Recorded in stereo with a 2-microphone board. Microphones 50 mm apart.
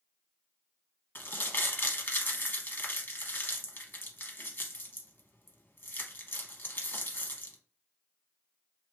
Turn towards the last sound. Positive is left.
turn(degrees=45)  # may be behind; listen again after turning